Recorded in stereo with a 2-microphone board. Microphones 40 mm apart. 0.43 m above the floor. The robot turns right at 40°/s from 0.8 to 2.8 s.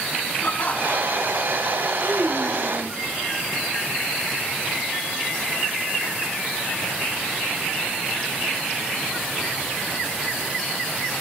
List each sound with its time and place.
0.4 s laughter: 40° left (ahead or behind), 4.5 m; by 1.5 s 65° left (ahead or behind), 4.5 m
2.0 s a child speaking: 35° right, 2 m; by 3.0 s 5° right, 2 m